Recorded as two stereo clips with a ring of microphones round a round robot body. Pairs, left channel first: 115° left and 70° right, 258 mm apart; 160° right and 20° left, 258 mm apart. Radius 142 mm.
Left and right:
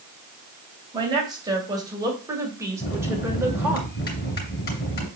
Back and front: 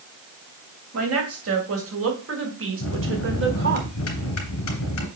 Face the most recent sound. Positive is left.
turn(degrees=165)